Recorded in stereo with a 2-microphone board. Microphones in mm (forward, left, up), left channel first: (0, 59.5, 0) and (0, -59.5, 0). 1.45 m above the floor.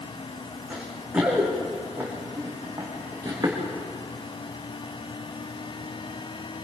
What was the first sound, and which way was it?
Running footsteps, 10° right (ahead or behind).